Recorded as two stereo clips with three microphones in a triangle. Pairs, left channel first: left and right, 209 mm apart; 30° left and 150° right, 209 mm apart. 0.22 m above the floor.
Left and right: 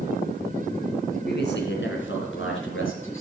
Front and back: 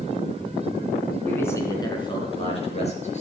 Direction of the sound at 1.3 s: 110° left.